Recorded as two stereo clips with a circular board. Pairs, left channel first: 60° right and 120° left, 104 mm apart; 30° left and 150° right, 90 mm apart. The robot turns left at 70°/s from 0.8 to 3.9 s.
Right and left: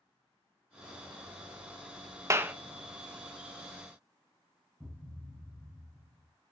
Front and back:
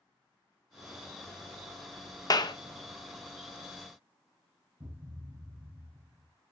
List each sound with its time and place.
2.3 s a clap: 65° left, 0.7 m; by 2.5 s 45° left, 0.7 m
4.8 s a thud: 155° right, 3 m